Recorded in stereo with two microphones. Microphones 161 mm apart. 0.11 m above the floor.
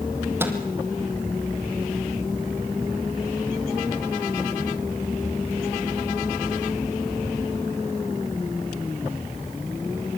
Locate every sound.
0.4 s a microwave: 15° right (ahead or behind), 3.5 m